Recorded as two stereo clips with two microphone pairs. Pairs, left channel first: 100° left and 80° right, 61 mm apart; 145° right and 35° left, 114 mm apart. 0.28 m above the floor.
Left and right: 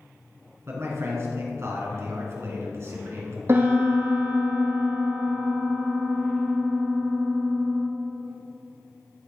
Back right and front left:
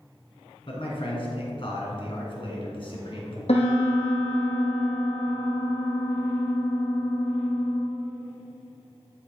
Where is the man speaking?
115° right, 2.5 m.